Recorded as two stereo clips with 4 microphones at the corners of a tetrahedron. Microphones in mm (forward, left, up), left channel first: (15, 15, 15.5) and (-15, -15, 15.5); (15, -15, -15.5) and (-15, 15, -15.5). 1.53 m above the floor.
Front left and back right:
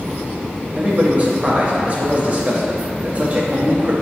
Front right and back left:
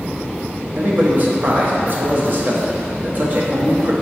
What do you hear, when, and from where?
0.8 s a man speaking: 175° left, 0.7 m